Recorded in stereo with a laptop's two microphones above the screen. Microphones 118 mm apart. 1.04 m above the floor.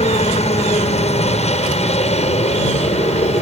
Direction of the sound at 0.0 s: 65° left (ahead or behind).